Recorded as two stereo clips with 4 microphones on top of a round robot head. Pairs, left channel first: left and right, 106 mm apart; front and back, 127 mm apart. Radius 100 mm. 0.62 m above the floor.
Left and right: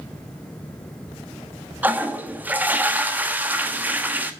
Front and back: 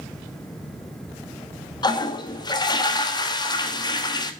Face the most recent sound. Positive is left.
turn(degrees=-25)